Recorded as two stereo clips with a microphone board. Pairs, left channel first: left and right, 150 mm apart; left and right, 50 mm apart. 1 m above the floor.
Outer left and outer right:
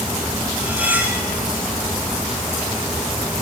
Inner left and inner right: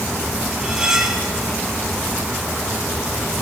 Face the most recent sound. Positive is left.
turn(degrees=-10)  # may be behind; listen again after turning